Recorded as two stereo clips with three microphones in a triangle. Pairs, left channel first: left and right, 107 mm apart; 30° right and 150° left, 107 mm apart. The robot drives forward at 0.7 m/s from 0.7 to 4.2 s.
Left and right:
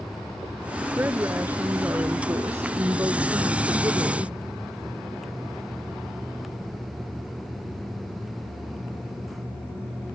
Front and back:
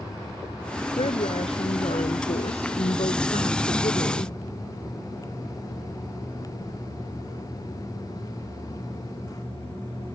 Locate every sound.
1.0 s a woman speaking: 20° right; by 4.3 s 35° right